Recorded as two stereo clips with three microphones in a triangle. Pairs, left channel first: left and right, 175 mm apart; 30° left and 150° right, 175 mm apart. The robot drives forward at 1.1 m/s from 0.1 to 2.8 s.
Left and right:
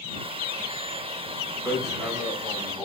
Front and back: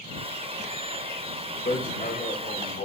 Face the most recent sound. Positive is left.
turn(degrees=0)